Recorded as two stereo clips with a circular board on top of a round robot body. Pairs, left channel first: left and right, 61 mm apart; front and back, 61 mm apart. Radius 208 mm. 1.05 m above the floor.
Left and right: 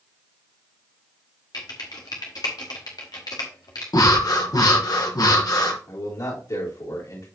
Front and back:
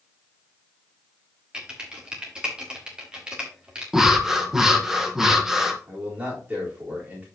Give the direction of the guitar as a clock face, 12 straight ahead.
No guitar in this recording.